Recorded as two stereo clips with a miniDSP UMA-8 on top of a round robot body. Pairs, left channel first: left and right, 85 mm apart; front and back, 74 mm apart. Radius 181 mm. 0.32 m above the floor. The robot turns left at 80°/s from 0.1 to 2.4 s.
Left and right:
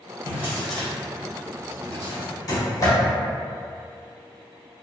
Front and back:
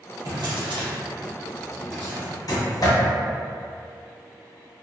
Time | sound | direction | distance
0.2 | a drawer | 145° right | 0.8 m